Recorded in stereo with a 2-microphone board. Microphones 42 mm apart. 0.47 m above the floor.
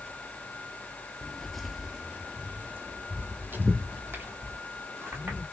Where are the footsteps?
20° left (ahead or behind), 0.6 m; by 5.4 s 75° right (ahead or behind), 2.5 m.